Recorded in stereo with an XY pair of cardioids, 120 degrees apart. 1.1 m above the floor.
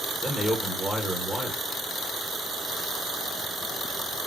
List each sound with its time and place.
0.2 s a man speaking: 5° left, 0.9 m